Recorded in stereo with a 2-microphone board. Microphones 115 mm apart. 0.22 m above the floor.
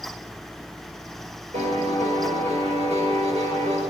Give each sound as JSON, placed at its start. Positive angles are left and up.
{"t": 1.5, "sound": "a piano", "side_deg": -70, "distance_m": 4.5}